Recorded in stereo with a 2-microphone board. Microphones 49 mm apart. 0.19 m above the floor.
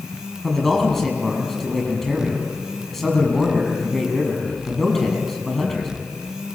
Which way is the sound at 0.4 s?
10° left (ahead or behind).